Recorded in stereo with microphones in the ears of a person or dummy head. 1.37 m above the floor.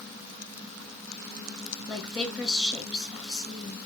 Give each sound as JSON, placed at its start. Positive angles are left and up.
{"t": 1.9, "sound": "a woman speaking", "side_deg": 0, "distance_m": 2.0}